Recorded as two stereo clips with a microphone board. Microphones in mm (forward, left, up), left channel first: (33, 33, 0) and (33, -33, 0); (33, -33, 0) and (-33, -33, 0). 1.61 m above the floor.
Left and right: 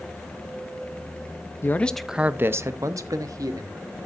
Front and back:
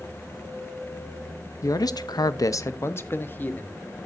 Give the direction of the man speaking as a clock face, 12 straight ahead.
11 o'clock.